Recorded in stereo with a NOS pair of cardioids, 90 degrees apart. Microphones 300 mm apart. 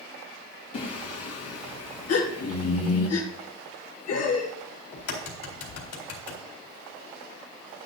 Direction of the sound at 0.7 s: 60° left.